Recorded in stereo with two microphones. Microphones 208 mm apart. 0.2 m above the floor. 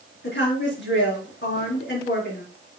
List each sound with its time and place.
0.2 s a woman speaking: 65° left (ahead or behind), 3.5 m